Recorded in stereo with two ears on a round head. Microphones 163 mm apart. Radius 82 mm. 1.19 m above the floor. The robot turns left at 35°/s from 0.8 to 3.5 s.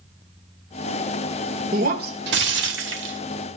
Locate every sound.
1.7 s breaking glass: 45° right, 1.9 m; by 3.2 s 100° right, 1.9 m